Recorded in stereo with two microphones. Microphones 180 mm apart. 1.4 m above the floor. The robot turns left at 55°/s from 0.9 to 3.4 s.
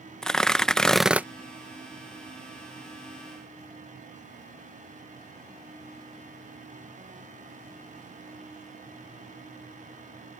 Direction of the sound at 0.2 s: 5° left (ahead or behind).